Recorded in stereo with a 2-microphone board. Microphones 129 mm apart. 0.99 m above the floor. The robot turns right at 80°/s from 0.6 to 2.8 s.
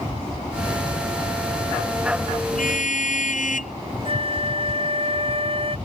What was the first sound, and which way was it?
A car horn, 85° left.